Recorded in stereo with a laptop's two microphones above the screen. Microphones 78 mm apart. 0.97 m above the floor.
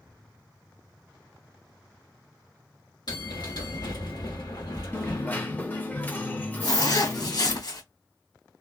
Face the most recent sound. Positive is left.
turn(degrees=65)  # may be behind; listen again after turning